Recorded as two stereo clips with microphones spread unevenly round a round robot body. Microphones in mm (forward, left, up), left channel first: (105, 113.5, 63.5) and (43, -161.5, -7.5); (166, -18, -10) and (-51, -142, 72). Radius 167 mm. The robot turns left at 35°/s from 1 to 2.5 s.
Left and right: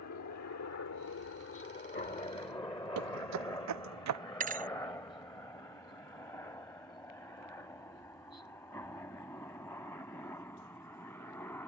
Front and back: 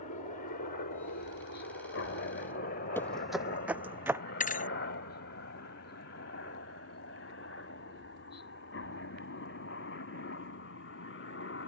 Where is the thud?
35° right.